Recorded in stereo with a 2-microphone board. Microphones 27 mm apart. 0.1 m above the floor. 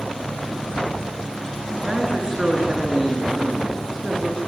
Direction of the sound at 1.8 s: 25° right (ahead or behind).